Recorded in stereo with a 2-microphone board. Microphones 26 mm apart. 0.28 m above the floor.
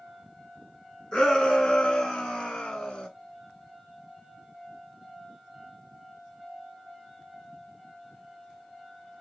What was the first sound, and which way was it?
A shout, 35° left (ahead or behind).